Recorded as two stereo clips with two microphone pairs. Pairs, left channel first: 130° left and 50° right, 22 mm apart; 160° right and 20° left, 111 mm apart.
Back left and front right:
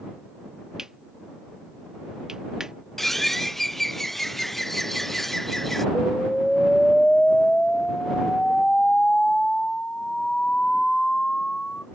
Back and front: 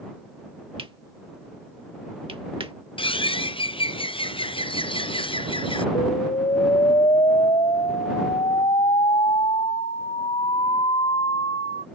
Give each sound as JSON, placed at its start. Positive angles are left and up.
{"t": 0.8, "sound": "cutlery clinking", "azimuth_deg": 5}
{"t": 3.0, "sound": "a bird", "azimuth_deg": -165}
{"t": 6.0, "sound": "an explosion", "azimuth_deg": 175}